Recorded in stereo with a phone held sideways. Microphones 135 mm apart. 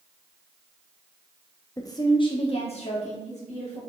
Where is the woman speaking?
25° left (ahead or behind), 1.1 m; by 3.8 s 70° left (ahead or behind), 2 m.